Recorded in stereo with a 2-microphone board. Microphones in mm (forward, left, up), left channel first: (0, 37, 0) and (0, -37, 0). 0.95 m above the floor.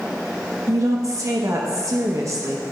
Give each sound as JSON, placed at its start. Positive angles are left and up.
{"t": 0.7, "sound": "a woman speaking", "side_deg": -45, "distance_m": 0.9}